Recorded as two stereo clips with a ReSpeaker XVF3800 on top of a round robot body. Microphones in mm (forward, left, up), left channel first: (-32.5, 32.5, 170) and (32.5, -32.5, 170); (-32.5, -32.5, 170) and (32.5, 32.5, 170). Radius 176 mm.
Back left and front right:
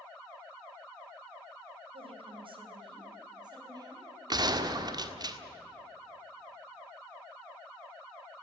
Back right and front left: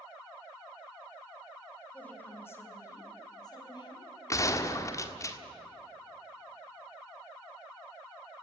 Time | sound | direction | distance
1.9 | a woman speaking | 60° right | 3.5 m
4.3 | a gunshot | 80° right | 1.7 m